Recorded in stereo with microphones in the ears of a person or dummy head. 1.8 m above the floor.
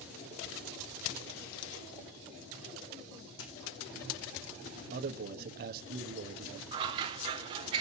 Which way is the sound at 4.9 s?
50° right (ahead or behind).